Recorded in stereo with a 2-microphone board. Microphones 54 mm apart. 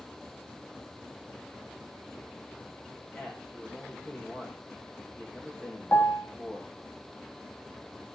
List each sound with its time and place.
3.1 s a man speaking: 30° left (ahead or behind), 6.5 m
5.9 s a piano: 40° left (ahead or behind), 1.2 m